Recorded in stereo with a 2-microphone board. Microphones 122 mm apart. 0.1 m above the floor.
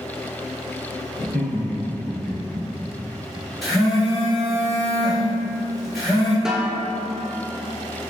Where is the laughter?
10° right (ahead or behind), 1.2 m; by 2.6 s 5° left (ahead or behind), 2 m.